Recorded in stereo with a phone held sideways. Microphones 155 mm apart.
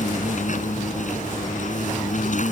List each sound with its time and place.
0.0 s an insect: 55° left (ahead or behind)